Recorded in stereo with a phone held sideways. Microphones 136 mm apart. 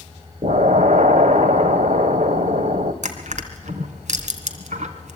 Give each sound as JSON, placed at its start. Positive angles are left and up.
{"t": 0.4, "sound": "an explosion", "side_deg": -70, "distance_m": 1.5}
{"t": 3.0, "sound": "crushing", "side_deg": -70, "distance_m": 2.5}